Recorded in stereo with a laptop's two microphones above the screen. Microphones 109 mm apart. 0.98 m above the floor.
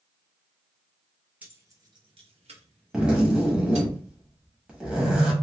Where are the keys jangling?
15° right (ahead or behind), 0.7 m; by 3.9 s 80° right, 1.5 m.